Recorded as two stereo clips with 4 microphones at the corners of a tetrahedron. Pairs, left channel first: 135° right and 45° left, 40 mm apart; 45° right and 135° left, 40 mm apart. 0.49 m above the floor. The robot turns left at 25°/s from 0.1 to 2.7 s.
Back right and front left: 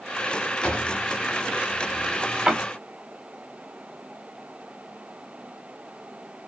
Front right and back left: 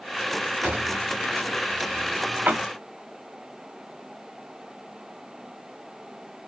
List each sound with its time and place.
0.6 s a drawer: 165° left, 0.8 m; by 2.6 s 115° left, 0.8 m